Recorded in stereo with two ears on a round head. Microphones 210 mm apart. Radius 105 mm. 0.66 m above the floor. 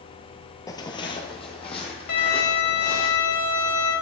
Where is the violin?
75° left (ahead or behind), 1.7 m.